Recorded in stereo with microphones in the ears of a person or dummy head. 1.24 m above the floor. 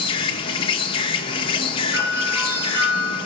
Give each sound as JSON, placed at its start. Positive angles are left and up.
{"t": 0.0, "sound": "an insect", "side_deg": 30, "distance_m": 1.0}
{"t": 1.9, "sound": "a doorbell", "side_deg": -10, "distance_m": 4.5}